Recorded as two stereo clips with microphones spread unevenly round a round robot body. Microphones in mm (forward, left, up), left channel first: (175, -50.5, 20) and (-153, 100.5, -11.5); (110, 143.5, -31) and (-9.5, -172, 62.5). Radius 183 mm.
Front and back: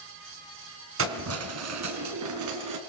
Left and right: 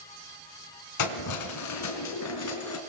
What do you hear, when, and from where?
1.0 s keys jangling: 100° left, 3 m; by 2.8 s 115° left, 4 m